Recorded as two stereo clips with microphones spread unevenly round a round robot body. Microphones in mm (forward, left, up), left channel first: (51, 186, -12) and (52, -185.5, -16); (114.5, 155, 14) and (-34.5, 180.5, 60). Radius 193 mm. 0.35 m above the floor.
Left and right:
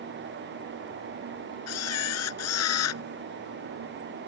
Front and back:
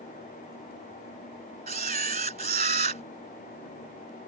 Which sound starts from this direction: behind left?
A camera shutter, at 1.7 s.